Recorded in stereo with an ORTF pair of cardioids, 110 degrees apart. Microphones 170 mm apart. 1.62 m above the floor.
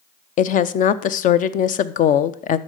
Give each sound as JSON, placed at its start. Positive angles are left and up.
{"t": 0.4, "sound": "a woman speaking", "azimuth_deg": 55, "distance_m": 0.7}